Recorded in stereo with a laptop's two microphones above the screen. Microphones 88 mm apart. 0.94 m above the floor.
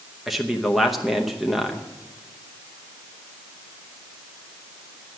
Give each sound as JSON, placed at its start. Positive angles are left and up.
{"t": 0.3, "sound": "a man speaking", "side_deg": 0, "distance_m": 0.8}